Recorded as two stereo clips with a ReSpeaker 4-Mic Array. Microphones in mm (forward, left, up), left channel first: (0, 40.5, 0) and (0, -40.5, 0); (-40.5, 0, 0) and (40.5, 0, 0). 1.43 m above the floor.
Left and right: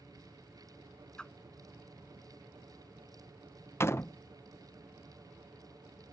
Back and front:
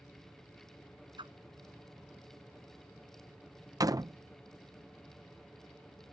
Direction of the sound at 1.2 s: 10° left.